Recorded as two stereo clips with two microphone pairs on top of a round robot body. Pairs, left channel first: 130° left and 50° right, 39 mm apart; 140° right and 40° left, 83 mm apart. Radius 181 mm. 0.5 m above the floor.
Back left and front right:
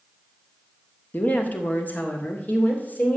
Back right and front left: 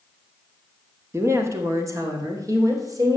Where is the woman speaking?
100° left, 1.8 m; by 3.2 s 90° left, 3 m.